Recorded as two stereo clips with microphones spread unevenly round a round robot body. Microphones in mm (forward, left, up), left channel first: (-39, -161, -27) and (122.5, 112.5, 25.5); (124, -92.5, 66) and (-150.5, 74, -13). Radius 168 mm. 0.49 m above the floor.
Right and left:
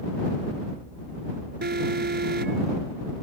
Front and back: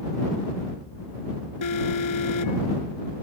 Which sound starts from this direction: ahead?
An alarm, at 1.6 s.